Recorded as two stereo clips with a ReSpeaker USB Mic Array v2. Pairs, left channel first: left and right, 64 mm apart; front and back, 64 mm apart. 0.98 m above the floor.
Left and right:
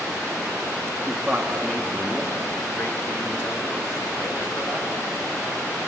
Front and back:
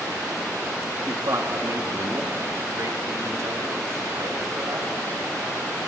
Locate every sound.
1.0 s a man speaking: 160° right, 2.0 m; by 4.9 s 130° left, 6 m